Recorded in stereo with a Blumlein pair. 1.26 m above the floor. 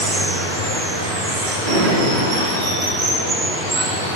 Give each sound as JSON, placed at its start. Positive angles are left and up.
{"t": 0.0, "sound": "running water", "azimuth_deg": -55, "distance_m": 1.3}
{"t": 1.6, "sound": "a drawer", "azimuth_deg": -50, "distance_m": 1.1}